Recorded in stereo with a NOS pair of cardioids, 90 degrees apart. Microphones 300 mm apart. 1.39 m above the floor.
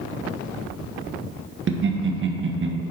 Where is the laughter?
40° right, 1.4 m.